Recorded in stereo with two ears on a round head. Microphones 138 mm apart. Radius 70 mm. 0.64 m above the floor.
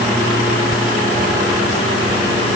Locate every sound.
Only background noise.